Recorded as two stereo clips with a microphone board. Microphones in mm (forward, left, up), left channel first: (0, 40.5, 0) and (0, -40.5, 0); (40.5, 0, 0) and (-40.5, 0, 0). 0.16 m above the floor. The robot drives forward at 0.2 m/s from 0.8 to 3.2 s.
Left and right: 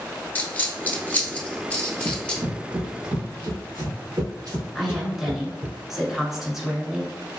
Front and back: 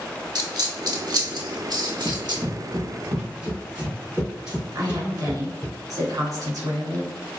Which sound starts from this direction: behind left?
A dropped coin, at 0.3 s.